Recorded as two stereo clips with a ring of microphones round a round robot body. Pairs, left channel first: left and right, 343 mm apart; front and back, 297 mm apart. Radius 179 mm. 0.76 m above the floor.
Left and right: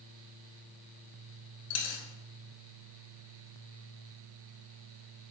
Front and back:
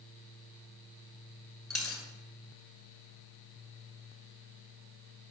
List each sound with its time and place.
1.7 s a dropped coin: 90° left, 1.1 m